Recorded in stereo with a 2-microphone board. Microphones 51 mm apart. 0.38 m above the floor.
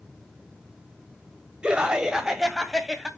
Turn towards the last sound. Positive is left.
turn(degrees=-5)  # may be behind; listen again after turning